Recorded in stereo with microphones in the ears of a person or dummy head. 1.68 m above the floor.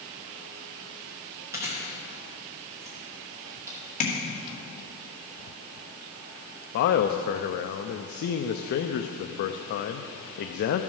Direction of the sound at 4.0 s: 45° left (ahead or behind).